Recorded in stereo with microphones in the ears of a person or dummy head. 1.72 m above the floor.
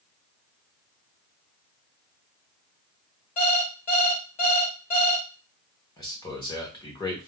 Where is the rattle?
No rattle in this recording.